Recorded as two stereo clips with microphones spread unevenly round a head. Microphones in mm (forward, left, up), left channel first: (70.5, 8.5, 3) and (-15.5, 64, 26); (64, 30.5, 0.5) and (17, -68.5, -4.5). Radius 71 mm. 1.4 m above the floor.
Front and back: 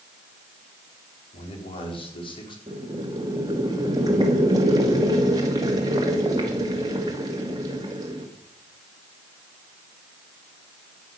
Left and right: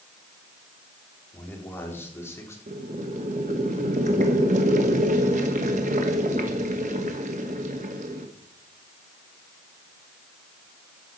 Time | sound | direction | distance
1.3 | a man speaking | 10° right | 4.5 m
2.7 | boiling | 150° right | 1.6 m